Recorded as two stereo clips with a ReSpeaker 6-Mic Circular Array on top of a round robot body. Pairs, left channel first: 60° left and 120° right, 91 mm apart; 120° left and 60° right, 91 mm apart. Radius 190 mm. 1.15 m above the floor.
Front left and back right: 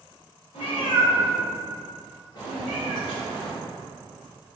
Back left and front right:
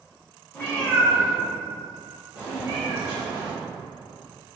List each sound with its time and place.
0.5 s a cat meowing: 45° left, 1.7 m; by 3.5 s 20° right, 1.5 m